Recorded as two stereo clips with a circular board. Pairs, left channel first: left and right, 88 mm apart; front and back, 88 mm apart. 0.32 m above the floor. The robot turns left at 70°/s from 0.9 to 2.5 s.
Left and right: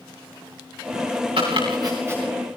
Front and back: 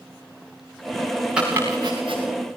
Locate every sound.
1.4 s chopping: 100° right, 7 m; by 2.2 s 160° right, 7 m